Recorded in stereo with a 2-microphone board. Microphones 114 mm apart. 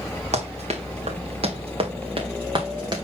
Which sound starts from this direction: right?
Running footsteps, at 0.3 s.